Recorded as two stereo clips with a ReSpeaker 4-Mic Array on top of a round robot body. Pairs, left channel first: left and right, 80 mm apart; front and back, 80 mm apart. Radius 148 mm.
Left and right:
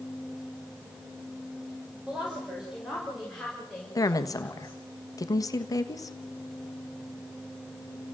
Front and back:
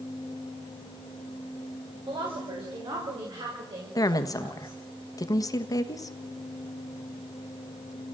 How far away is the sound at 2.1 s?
About 5.5 m.